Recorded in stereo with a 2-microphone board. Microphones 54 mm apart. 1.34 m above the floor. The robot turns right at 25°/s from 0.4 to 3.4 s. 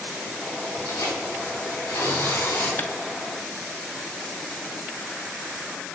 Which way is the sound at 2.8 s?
40° left (ahead or behind).